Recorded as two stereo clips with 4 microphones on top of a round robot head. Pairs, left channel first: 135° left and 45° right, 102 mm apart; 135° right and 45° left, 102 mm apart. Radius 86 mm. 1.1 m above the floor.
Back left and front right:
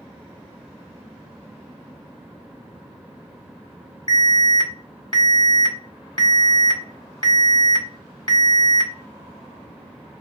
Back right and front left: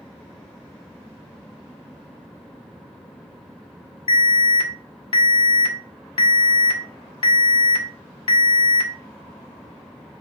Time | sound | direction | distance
4.1 | an alarm | 175° right | 2.0 m